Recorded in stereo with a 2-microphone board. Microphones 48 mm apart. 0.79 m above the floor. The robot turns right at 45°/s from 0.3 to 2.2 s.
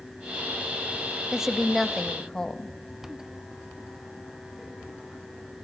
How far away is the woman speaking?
About 0.5 m.